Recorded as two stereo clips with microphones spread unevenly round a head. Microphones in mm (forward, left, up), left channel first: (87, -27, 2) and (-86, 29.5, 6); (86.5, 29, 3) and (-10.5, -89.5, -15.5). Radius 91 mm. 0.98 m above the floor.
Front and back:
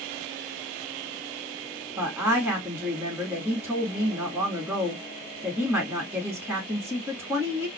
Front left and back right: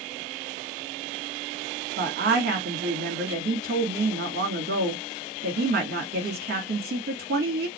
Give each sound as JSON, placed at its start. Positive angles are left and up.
{"t": 2.0, "sound": "a woman speaking", "azimuth_deg": -120, "distance_m": 2.0}